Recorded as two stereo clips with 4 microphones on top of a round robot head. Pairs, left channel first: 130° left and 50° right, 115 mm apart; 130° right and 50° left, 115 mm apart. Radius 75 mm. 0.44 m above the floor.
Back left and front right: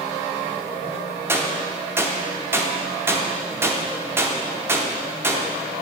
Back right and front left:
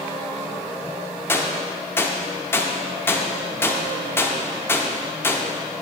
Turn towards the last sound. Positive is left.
turn(degrees=-90)